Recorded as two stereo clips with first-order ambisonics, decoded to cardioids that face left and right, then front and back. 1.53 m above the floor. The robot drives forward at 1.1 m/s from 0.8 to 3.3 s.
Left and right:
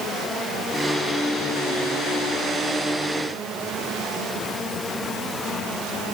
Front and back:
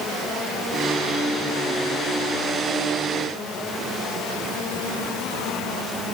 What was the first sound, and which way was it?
Only background noise.